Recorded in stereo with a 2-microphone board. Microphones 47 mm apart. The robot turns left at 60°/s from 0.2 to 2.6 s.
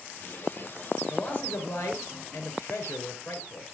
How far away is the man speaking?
About 3.5 m.